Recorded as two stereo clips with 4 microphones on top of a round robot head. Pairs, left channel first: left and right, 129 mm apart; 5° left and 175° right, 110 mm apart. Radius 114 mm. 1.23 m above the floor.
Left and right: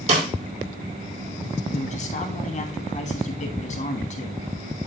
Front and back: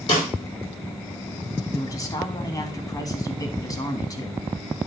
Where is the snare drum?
55° right, 4 m.